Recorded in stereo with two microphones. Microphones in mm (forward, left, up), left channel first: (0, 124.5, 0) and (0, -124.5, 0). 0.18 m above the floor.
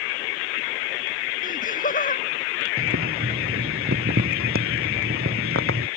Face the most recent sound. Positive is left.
turn(degrees=-60)  # may be behind; listen again after turning